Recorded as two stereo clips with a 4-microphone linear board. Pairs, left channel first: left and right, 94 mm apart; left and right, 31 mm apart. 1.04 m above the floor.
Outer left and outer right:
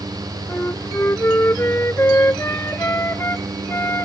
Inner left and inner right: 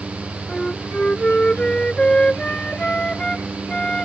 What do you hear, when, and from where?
0.5 s a flute: 25° left (ahead or behind)